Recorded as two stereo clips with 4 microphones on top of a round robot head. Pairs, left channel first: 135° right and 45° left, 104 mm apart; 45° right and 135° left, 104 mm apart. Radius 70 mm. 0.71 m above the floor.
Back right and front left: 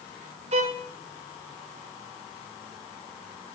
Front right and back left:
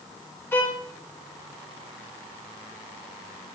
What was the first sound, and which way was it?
A violin, 20° left.